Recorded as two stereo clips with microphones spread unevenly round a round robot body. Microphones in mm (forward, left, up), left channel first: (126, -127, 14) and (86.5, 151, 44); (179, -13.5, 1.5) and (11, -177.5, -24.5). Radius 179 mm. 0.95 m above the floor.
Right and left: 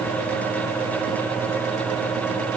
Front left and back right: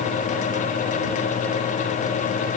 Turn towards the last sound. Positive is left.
No sound to turn to.